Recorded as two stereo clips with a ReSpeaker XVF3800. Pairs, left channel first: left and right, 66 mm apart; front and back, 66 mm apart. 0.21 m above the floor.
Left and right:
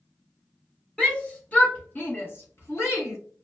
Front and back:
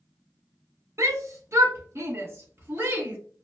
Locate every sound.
1.0 s a shout: 160° left, 1.7 m; by 3.2 s 130° left, 2.5 m